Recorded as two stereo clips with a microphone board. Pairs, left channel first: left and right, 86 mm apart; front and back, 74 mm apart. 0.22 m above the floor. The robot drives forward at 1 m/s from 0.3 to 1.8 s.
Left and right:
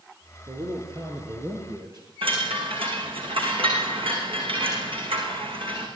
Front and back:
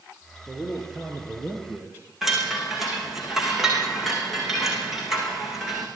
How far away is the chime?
About 6.5 m.